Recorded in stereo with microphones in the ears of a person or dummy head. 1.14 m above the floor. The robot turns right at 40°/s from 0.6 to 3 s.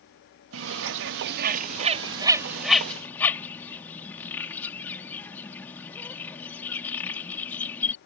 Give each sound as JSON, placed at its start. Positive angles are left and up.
{"t": 0.5, "sound": "a bird", "side_deg": -75}